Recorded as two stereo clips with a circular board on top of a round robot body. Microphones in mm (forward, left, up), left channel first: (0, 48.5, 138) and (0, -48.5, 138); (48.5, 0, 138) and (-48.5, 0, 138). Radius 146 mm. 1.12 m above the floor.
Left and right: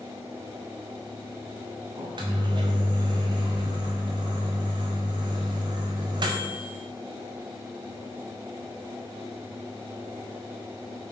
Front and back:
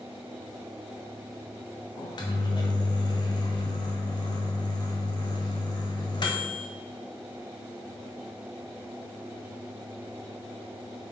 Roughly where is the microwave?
Ahead right.